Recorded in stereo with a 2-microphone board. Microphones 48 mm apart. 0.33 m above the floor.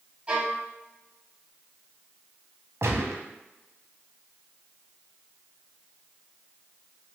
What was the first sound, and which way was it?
A violin, 20° right (ahead or behind).